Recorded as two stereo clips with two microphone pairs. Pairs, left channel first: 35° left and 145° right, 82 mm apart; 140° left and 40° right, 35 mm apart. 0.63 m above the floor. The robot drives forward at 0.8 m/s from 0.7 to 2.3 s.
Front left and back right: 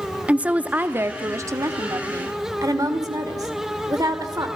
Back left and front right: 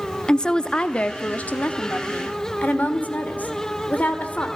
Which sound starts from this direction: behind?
A woman speaking, at 0.3 s.